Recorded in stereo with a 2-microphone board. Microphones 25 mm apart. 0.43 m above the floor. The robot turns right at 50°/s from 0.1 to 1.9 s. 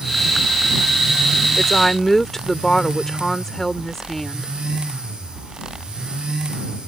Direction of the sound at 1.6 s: 5° left (ahead or behind).